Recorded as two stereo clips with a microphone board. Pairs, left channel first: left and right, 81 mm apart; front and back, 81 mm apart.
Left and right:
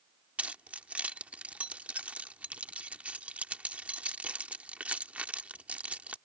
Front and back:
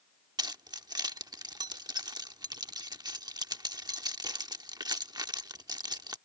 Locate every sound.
0.4 s keys jangling: 160° right